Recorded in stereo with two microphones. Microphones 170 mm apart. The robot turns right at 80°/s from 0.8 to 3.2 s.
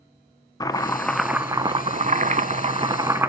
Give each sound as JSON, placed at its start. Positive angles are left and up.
{"t": 0.6, "sound": "chopping", "azimuth_deg": 150, "distance_m": 0.5}